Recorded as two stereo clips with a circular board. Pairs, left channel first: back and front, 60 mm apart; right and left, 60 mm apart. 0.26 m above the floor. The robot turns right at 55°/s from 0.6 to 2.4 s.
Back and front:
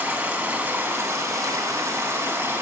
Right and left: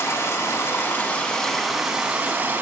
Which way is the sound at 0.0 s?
60° right.